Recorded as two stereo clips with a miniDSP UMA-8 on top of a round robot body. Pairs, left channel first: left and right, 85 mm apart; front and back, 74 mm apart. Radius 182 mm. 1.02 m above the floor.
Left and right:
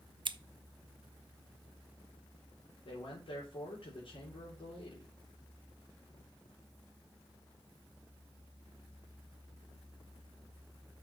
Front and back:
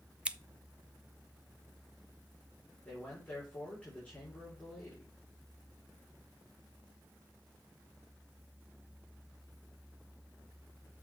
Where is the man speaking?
75° left, 4 m.